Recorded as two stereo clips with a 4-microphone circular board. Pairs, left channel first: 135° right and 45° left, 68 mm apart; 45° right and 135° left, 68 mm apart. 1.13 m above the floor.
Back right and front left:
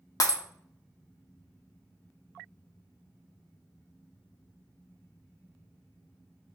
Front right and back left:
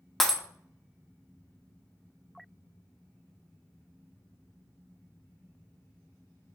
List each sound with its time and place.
0.2 s breaking glass: 130° right, 0.8 m